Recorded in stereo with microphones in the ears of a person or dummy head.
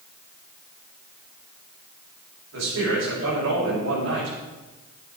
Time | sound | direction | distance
2.5 | a man speaking | 85° right | 5.5 m